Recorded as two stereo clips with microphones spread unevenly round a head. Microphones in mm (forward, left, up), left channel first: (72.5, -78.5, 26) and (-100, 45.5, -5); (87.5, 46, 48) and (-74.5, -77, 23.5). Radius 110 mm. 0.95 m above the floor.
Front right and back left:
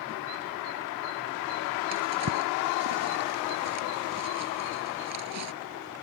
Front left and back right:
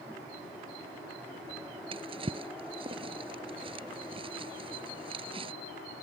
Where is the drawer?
150° left.